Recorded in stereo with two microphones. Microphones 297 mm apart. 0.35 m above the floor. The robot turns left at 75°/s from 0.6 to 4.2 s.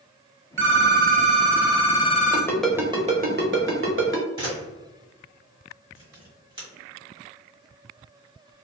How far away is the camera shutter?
About 1.9 m.